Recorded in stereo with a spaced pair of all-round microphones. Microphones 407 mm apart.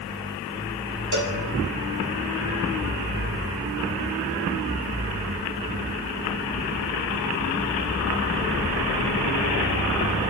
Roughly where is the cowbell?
Right.